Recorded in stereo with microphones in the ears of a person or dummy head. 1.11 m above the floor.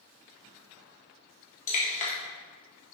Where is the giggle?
I don't hear a giggle.